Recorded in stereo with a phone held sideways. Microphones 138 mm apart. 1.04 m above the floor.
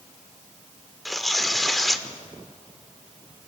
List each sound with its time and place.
1.1 s tearing paper: centre (ahead or behind), 1.0 m